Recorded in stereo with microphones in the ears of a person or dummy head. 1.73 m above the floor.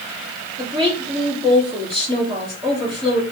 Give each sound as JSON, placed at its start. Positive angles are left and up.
{"t": 0.6, "sound": "a woman speaking", "side_deg": -20, "distance_m": 3.5}